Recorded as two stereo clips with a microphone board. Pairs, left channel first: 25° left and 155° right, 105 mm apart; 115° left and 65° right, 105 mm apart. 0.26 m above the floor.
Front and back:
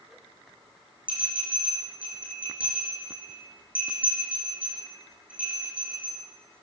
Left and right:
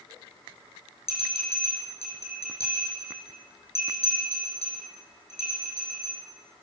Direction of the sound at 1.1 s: 125° left.